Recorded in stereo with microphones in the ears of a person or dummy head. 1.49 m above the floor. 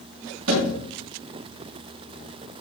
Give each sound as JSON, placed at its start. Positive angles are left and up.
{"t": 0.5, "sound": "a thud", "side_deg": -70, "distance_m": 7.0}